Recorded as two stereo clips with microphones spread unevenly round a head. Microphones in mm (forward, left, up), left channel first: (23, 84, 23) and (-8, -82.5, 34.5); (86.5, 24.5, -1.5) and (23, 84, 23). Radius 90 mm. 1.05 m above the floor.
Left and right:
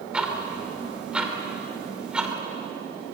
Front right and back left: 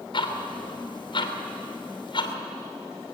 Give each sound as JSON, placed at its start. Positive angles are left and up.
{"t": 0.1, "sound": "ticking", "azimuth_deg": -15, "distance_m": 2.5}